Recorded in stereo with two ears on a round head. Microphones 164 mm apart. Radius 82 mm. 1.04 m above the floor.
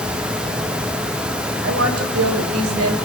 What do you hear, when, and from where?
1.6 s a woman speaking: 75° right (ahead or behind), 4 m; by 3.0 s 85° right, 3.5 m